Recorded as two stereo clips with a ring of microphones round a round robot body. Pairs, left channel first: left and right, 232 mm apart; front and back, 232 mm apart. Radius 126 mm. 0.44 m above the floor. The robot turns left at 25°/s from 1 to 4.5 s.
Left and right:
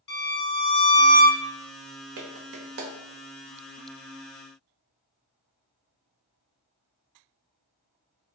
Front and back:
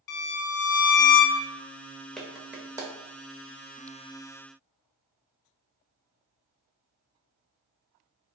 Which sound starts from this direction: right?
A clap, at 2.2 s.